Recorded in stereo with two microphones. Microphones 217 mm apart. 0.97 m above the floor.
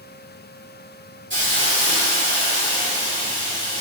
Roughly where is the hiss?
Right.